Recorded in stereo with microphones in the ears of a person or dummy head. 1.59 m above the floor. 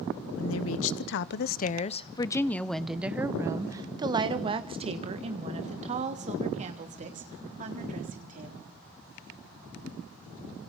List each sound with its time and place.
0.4 s a woman speaking: 80° left, 1.2 m; by 8.8 s 45° right (ahead or behind), 4 m